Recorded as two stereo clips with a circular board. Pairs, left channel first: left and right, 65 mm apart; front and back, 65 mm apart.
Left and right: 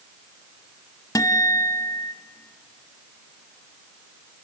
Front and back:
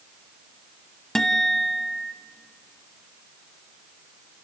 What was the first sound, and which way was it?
A guitar, 85° left.